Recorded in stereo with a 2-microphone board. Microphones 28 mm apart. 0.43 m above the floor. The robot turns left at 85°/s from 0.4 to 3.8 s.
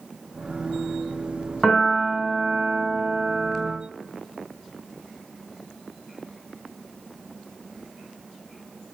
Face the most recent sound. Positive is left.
turn(degrees=-175)